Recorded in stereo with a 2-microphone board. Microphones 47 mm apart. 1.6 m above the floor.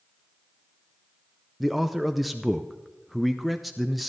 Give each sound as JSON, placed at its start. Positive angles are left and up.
{"t": 1.6, "sound": "a man speaking", "side_deg": 0, "distance_m": 0.5}